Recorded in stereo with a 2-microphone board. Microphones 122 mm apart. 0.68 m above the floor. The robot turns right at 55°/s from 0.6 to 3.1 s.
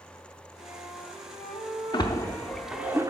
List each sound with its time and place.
0.6 s a flute: 65° left, 3 m; by 2.9 s 165° right, 3 m
1.9 s a splash: 40° left (ahead or behind), 0.7 m; by 3.1 s 25° right (ahead or behind), 0.7 m